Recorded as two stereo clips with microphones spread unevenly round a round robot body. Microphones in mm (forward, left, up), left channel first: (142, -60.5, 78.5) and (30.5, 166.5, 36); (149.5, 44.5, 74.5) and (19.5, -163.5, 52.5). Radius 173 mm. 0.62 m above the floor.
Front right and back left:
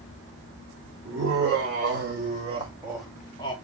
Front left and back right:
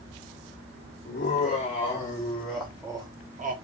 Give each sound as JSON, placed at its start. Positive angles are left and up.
{"t": 1.1, "sound": "laughter", "azimuth_deg": 115, "distance_m": 1.3}